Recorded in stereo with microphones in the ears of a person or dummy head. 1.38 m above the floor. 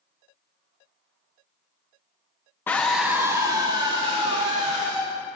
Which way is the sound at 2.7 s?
15° left (ahead or behind).